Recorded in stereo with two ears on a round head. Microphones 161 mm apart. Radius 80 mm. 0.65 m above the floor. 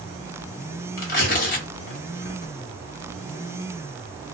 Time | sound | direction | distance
1.0 | tearing paper | 50° left (ahead or behind) | 1.0 m